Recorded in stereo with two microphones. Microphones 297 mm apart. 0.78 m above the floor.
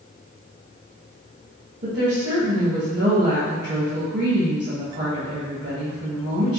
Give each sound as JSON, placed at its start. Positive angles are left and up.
{"t": 1.8, "sound": "a woman speaking", "side_deg": -35, "distance_m": 1.1}